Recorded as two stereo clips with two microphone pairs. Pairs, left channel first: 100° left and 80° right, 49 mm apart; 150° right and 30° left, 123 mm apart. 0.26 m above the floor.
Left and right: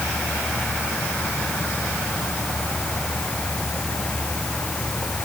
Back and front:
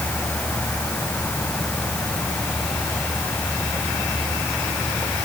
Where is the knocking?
No knocking in this recording.